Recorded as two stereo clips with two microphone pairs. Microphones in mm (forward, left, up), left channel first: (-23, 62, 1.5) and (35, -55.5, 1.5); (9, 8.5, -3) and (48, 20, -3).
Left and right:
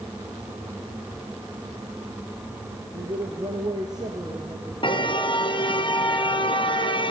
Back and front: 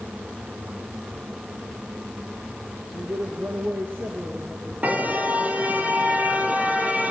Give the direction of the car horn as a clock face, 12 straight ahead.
10 o'clock.